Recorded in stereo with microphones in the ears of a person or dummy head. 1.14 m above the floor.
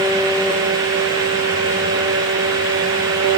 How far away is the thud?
No thud in this recording.